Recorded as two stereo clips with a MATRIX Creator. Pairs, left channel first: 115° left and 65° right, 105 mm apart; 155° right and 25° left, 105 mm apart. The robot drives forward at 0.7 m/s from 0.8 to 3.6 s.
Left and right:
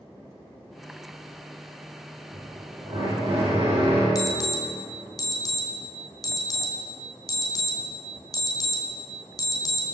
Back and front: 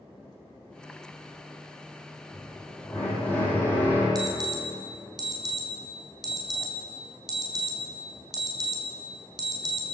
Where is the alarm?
65° left, 3.5 m.